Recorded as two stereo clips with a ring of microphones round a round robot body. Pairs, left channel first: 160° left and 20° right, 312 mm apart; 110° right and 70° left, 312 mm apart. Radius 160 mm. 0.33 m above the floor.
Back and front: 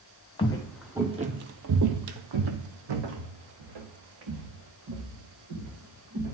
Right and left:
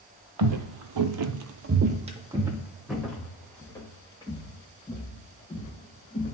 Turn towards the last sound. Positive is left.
turn(degrees=-40)